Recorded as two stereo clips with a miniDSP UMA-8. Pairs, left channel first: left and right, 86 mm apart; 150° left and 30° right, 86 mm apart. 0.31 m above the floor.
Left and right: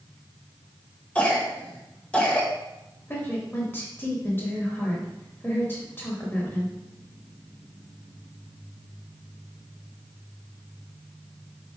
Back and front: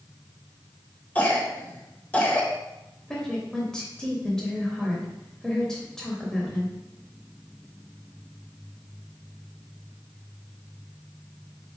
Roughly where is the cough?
Behind left.